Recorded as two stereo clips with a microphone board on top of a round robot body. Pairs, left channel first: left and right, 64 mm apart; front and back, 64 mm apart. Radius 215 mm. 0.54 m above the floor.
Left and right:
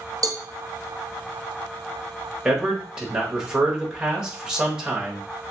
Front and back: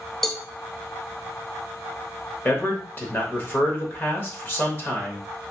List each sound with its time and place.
0.2 s a cowbell: 80° right, 0.6 m
2.5 s a man speaking: 20° right, 1.3 m